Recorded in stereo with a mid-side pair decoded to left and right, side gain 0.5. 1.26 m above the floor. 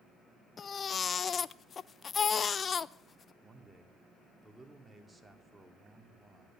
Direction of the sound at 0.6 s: 40° left.